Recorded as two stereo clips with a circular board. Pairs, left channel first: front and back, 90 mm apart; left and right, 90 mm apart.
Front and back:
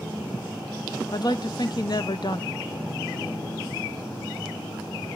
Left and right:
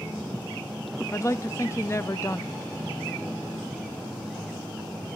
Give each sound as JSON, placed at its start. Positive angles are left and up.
{"t": 1.1, "sound": "a woman speaking", "azimuth_deg": 35, "distance_m": 0.7}